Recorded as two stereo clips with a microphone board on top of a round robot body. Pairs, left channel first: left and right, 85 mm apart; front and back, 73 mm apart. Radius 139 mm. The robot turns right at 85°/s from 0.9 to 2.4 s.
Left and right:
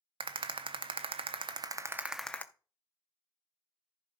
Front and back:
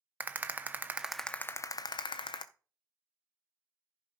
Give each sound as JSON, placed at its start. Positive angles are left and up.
{"t": 0.2, "sound": "a rattle", "azimuth_deg": -110, "distance_m": 0.5}